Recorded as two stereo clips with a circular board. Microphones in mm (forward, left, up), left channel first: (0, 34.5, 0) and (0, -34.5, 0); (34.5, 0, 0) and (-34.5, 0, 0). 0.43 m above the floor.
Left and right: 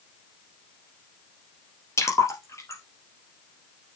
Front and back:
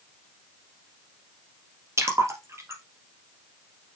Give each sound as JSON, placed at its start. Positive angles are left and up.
{"t": 2.0, "sound": "a splash", "azimuth_deg": 135, "distance_m": 2.5}